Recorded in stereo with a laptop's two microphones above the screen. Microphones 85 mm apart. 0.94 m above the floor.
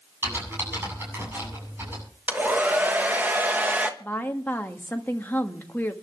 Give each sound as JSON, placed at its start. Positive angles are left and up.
{"t": 0.2, "sound": "typing on a keyboard", "side_deg": -25, "distance_m": 8.0}
{"t": 2.3, "sound": "a hair dryer", "side_deg": -20, "distance_m": 1.2}
{"t": 4.0, "sound": "a woman speaking", "side_deg": 20, "distance_m": 1.1}